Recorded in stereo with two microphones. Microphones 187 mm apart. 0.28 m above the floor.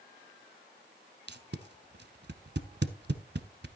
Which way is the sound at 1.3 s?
60° right (ahead or behind).